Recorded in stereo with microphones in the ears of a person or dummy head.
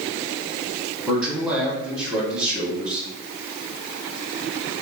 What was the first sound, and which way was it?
A man speaking, 15° right (ahead or behind).